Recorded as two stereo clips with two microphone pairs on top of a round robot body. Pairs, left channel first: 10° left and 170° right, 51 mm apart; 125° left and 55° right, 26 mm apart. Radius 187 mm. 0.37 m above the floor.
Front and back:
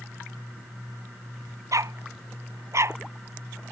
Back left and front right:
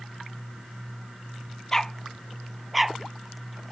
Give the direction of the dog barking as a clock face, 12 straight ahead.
5 o'clock.